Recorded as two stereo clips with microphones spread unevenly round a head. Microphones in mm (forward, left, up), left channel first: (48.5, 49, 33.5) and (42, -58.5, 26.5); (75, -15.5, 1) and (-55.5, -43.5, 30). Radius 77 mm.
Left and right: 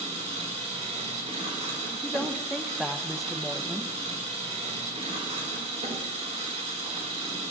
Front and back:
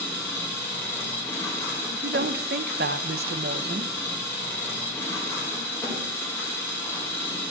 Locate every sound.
0.0 s an engine running: 65° right, 5.5 m
1.9 s a woman speaking: 175° left, 0.6 m